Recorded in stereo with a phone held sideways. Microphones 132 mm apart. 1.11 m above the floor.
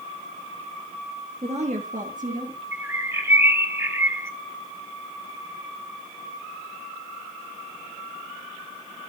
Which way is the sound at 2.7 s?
20° right (ahead or behind).